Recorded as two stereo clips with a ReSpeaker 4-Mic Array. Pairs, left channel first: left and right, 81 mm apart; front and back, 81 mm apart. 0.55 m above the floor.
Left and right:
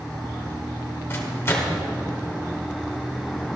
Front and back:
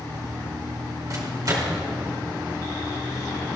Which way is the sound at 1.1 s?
145° left.